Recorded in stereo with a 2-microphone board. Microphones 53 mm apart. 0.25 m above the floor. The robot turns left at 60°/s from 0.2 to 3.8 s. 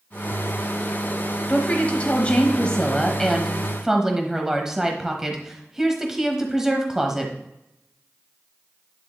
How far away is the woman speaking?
About 1.0 m.